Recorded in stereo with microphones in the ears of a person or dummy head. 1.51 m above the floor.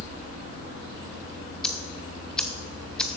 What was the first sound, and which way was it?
Ticking, centre (ahead or behind).